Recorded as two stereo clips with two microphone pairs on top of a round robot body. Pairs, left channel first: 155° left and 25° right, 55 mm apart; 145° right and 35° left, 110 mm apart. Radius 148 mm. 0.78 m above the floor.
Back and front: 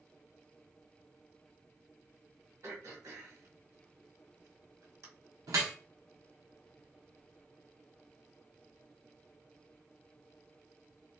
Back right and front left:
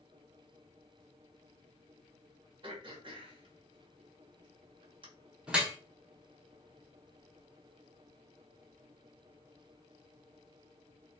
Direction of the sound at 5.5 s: 45° right.